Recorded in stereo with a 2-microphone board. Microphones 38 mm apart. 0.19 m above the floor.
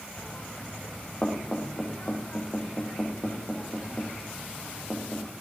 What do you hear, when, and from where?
0.2 s knocking: 25° left (ahead or behind), 8.5 m